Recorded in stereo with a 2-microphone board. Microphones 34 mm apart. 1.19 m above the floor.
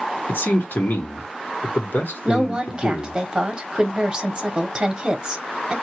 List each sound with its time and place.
0.3 s a man speaking: 75° left (ahead or behind), 1.4 m
2.2 s a woman speaking: 25° right (ahead or behind), 1.0 m